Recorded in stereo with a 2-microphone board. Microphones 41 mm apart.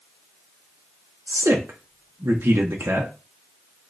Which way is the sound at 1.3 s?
85° right.